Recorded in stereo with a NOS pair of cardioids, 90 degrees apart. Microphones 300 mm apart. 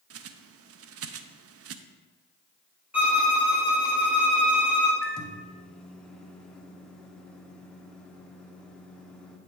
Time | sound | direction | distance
0.1 | a bird | 50° right | 0.6 m
2.9 | a violin | 5° right | 1.8 m
5.0 | a microwave | straight ahead | 1.1 m